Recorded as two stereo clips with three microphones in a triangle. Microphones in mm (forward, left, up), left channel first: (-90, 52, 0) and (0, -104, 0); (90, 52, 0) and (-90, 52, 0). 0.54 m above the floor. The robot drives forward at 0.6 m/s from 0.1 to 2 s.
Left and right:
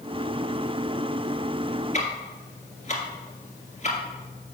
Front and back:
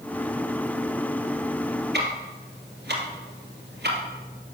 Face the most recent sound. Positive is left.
turn(degrees=170)